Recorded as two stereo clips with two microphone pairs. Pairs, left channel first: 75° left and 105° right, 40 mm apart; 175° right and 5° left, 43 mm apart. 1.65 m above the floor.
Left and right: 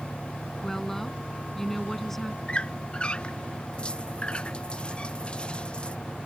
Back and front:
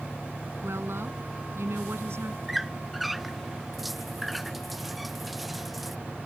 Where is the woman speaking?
10° right.